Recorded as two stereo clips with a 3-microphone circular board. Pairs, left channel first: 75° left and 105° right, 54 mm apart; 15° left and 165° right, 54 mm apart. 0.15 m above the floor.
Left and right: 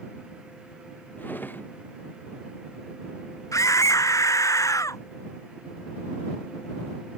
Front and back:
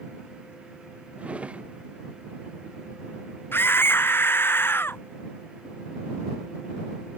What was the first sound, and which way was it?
A drawer, 130° left.